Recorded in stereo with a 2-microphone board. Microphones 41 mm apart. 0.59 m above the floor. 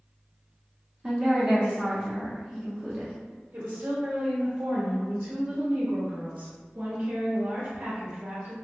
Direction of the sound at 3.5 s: 60° right (ahead or behind).